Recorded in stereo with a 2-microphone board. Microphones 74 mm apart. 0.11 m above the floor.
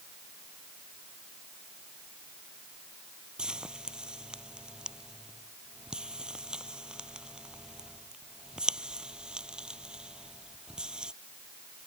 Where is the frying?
10° right (ahead or behind).